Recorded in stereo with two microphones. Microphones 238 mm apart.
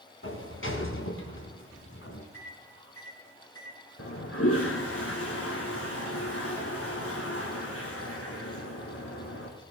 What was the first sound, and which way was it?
A sliding door, 60° left (ahead or behind).